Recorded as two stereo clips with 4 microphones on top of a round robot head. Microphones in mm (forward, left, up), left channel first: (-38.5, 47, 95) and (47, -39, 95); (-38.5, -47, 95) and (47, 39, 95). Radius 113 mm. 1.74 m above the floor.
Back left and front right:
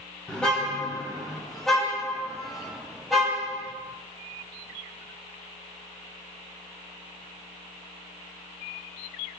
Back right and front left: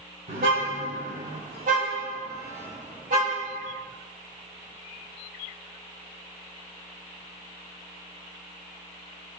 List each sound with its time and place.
0.3 s a car horn: 50° left, 6.5 m; by 3.7 s 40° left, 8.5 m